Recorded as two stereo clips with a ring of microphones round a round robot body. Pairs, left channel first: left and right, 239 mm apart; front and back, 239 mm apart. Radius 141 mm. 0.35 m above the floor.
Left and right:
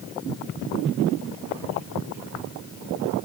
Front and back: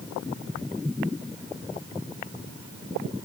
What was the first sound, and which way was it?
Only background noise.